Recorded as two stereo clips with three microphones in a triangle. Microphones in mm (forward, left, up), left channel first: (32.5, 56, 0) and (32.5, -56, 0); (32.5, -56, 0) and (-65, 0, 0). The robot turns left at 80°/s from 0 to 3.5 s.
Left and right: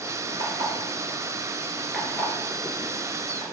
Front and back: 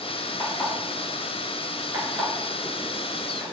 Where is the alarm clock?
50° right, 1.2 m; by 3.4 s 65° left, 1.2 m.